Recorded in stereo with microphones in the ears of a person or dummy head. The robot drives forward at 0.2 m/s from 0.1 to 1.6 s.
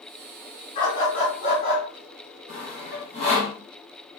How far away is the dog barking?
About 1.6 m.